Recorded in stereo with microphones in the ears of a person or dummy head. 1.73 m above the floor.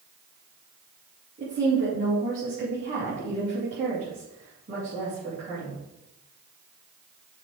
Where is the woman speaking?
45° right (ahead or behind), 3 m.